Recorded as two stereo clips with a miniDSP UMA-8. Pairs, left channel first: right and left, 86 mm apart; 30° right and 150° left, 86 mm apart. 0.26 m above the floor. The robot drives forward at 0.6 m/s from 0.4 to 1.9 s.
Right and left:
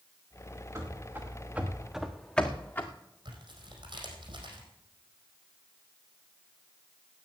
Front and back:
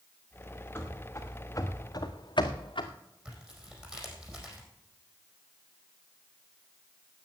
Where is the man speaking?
No man speaking in this recording.